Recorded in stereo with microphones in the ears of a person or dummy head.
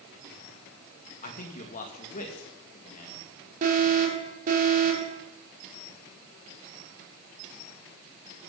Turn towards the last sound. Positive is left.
turn(degrees=-50)  # may be behind; listen again after turning